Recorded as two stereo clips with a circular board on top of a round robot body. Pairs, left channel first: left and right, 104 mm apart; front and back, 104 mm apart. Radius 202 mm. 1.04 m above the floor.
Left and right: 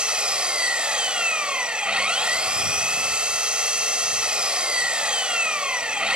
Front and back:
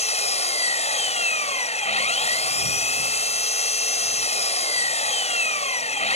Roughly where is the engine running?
Ahead.